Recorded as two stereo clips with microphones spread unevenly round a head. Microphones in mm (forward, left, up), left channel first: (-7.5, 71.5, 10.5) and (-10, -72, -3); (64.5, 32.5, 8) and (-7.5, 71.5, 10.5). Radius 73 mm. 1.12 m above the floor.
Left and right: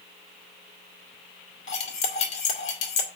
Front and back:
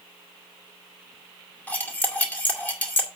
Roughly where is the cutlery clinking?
Ahead left.